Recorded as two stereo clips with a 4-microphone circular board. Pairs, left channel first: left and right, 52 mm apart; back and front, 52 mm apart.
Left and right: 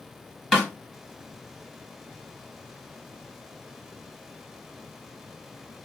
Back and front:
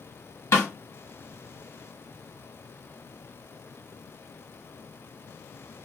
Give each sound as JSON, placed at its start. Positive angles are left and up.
{"t": 0.5, "sound": "a snare drum", "azimuth_deg": -175, "distance_m": 1.3}